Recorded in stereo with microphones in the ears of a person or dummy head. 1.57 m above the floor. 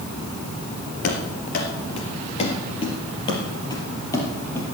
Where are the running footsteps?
50° left (ahead or behind), 2.5 m; by 4.7 s 15° left (ahead or behind), 3 m.